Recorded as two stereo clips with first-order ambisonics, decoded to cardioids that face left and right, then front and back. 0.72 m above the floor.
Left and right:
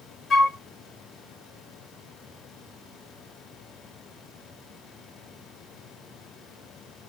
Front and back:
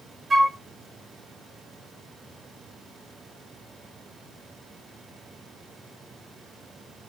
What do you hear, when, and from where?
0.3 s a flute: 105° left, 0.7 m